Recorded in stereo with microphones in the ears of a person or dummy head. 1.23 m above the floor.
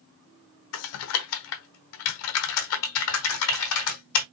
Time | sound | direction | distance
0.7 | typing on a keyboard | 75° left (ahead or behind) | 1.1 m